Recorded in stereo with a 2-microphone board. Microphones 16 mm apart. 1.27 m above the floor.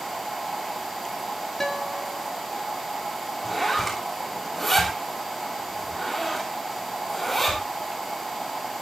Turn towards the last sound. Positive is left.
turn(degrees=10)  # may be behind; listen again after turning